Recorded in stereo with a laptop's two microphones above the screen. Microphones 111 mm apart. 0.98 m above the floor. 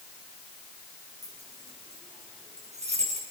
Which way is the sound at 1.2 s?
90° right.